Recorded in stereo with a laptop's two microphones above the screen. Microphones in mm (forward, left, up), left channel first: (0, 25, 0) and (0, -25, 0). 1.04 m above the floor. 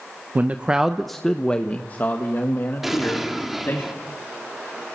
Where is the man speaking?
35° right (ahead or behind), 0.8 m; by 3.8 s 55° left (ahead or behind), 2.5 m.